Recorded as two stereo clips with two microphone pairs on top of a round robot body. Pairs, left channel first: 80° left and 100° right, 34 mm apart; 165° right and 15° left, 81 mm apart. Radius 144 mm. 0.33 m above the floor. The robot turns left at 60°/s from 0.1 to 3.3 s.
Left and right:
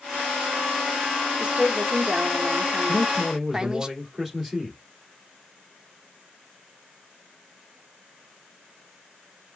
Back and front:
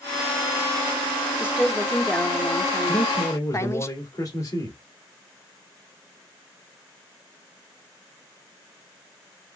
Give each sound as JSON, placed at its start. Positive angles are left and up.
{"t": 1.4, "sound": "a woman speaking", "azimuth_deg": -50, "distance_m": 1.2}
{"t": 2.9, "sound": "a man speaking", "azimuth_deg": -160, "distance_m": 2.0}